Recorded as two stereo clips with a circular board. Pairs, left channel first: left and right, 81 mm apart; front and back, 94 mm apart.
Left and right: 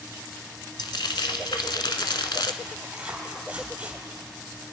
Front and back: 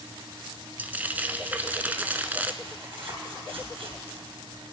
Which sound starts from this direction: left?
Frying, at 0.8 s.